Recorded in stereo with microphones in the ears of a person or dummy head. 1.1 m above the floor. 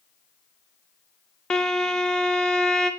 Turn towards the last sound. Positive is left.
turn(degrees=0)  # may be behind; listen again after turning